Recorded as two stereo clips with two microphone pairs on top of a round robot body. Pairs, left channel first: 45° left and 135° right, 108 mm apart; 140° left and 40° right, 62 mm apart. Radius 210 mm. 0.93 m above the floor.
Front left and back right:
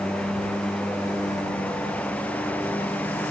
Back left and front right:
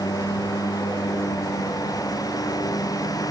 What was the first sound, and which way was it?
A lawn mower, 130° left.